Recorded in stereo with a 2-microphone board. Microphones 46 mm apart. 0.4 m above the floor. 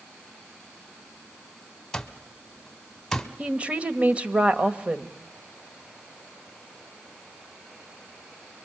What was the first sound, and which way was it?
An alarm clock, 10° left (ahead or behind).